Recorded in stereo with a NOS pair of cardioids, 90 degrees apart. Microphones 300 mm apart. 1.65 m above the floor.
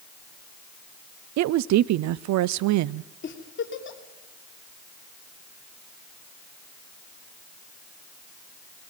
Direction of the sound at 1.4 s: 65° right.